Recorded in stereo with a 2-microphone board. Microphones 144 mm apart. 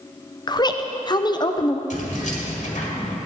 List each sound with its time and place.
0.5 s a woman speaking: 30° left (ahead or behind), 0.6 m
1.9 s keys jangling: 60° left (ahead or behind), 1.9 m